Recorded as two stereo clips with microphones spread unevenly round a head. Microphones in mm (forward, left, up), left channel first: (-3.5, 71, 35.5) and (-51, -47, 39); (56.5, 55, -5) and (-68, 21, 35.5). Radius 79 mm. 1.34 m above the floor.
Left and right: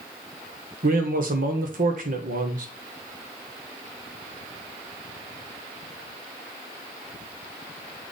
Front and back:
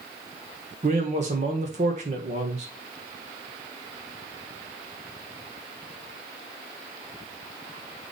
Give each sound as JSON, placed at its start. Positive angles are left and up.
{"t": 0.8, "sound": "a man speaking", "azimuth_deg": -115, "distance_m": 1.4}